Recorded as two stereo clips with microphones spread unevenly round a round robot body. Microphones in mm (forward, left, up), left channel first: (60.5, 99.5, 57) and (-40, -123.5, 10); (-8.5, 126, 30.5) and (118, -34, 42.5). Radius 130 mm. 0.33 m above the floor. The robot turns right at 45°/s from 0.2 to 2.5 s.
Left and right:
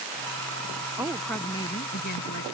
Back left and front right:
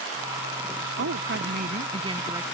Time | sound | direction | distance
1.0 | a woman speaking | 35° right | ?